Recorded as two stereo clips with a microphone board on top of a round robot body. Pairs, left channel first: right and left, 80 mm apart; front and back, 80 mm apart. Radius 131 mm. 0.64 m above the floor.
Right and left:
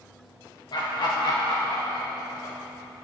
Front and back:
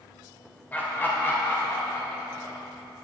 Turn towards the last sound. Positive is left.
turn(degrees=-50)